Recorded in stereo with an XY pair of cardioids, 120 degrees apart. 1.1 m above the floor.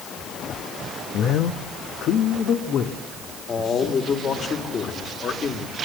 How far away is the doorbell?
No doorbell in this recording.